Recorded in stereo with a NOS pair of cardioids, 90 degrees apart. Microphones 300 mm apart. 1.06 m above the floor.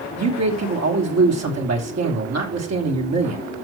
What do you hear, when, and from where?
0.2 s a man speaking: 60° right, 3 m